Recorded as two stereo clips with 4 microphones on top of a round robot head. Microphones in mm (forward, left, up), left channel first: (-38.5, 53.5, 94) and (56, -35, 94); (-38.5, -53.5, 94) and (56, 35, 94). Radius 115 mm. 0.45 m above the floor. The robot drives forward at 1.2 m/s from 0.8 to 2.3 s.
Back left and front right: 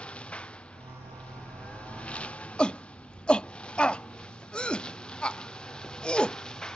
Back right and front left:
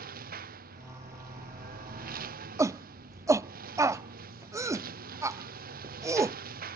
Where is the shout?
65° left.